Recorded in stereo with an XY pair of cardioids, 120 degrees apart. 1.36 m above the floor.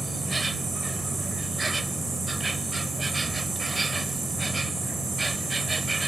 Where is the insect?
20° right.